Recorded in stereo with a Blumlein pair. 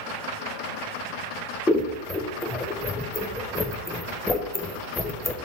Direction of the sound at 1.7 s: 10° left.